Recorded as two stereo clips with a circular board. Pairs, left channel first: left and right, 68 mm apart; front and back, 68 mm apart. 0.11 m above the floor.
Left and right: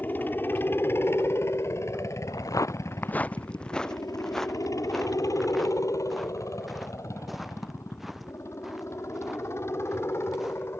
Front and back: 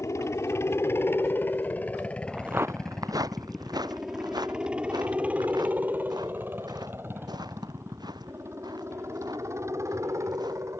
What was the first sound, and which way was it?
A helicopter, 35° left.